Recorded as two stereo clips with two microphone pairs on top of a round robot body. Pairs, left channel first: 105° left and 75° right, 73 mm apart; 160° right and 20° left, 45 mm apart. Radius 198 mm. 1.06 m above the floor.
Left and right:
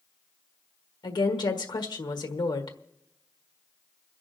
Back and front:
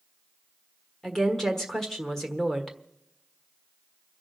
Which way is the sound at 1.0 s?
120° left.